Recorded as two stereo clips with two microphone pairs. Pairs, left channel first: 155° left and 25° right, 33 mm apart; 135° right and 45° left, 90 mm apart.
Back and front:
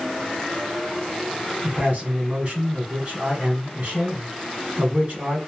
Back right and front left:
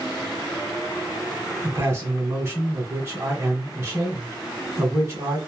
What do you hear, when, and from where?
1.6 s a man speaking: 5° right, 1.5 m